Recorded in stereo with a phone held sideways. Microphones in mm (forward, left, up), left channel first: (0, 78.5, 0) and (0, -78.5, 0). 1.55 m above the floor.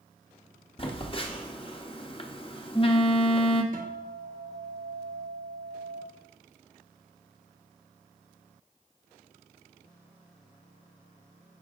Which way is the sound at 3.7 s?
60° right (ahead or behind).